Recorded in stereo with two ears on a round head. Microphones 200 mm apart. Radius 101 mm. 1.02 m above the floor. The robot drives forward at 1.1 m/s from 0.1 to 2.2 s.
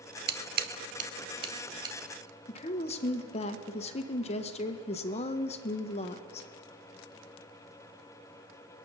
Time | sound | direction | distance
0.3 | scissors | 45° right (ahead or behind) | 0.8 m
2.5 | a woman speaking | 25° left (ahead or behind) | 0.7 m